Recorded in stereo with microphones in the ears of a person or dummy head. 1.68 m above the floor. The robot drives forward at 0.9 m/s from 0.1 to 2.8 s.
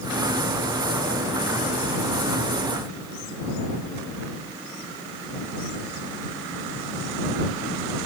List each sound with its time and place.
Only background noise.